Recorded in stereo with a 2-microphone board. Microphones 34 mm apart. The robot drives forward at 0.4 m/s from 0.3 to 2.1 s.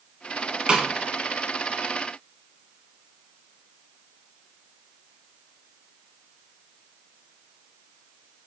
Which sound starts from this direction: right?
A snare drum, at 0.7 s.